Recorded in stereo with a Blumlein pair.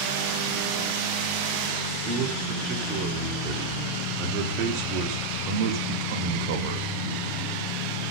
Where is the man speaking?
40° right, 5.5 m; by 6.9 s 50° right, 2.5 m.